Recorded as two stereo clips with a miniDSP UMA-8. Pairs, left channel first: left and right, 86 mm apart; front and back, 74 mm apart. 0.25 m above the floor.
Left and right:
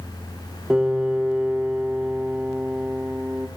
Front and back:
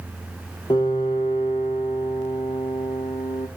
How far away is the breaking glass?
I don't hear breaking glass.